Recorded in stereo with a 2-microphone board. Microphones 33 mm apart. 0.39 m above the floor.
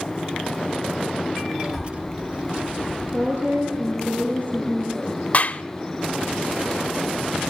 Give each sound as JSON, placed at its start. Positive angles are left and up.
{"t": 1.6, "sound": "a child speaking", "side_deg": -30, "distance_m": 1.7}
{"t": 3.1, "sound": "a woman speaking", "side_deg": -60, "distance_m": 8.0}
{"t": 5.3, "sound": "a clap", "side_deg": 45, "distance_m": 0.8}